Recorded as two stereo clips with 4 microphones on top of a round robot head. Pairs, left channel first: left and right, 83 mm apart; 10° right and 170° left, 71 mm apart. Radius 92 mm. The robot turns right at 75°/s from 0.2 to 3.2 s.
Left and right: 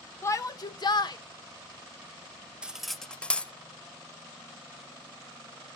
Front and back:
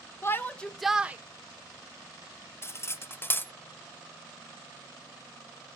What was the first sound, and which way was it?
A shout, 40° left.